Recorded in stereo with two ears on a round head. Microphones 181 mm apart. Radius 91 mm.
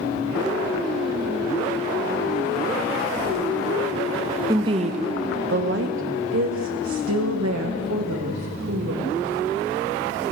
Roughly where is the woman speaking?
Centre.